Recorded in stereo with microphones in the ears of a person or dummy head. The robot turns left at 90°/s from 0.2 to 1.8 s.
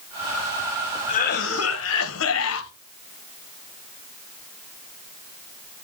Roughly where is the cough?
Behind left.